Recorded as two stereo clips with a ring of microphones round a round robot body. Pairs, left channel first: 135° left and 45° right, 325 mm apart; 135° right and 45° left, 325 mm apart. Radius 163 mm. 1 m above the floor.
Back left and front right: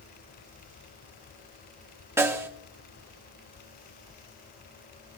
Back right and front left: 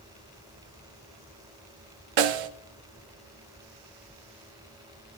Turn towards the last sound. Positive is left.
turn(degrees=40)